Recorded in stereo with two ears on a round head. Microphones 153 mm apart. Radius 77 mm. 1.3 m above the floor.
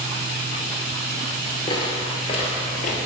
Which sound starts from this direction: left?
Footsteps, at 1.7 s.